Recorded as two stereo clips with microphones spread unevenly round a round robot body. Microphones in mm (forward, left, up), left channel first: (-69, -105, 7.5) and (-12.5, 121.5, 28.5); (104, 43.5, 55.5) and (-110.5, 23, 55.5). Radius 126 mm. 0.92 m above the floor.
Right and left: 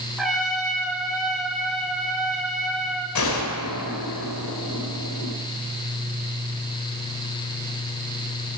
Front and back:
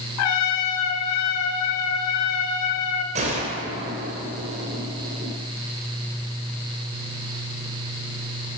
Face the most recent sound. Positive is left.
turn(degrees=-110)